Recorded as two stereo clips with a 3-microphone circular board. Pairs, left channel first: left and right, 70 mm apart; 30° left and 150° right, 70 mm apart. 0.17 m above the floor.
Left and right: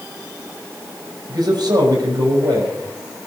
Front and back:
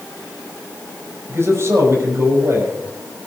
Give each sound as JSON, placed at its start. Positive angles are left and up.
{"t": 1.3, "sound": "a man speaking", "azimuth_deg": -100, "distance_m": 6.0}